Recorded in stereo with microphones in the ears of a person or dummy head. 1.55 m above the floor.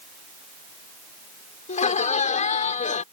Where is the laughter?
30° left (ahead or behind).